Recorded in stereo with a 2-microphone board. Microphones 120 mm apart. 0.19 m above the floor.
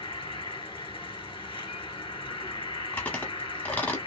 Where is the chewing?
15° left (ahead or behind), 0.9 m.